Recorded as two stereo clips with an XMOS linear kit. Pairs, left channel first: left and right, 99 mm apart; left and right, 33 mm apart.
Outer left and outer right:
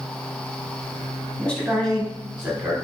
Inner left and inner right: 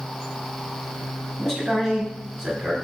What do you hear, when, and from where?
1.4 s a man speaking: 15° left (ahead or behind), 1.2 m; by 2.8 s 10° right (ahead or behind), 1.4 m